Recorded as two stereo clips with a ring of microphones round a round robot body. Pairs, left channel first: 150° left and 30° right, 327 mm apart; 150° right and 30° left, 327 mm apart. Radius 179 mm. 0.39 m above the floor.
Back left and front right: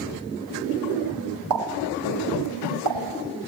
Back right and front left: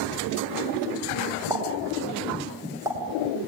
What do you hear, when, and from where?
1.5 s a pop: 50° right, 2.5 m